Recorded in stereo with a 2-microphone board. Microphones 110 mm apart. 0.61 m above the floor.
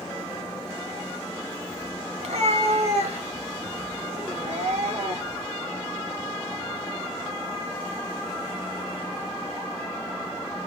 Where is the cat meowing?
85° right, 2 m; by 5.5 s 70° right (ahead or behind), 4.5 m.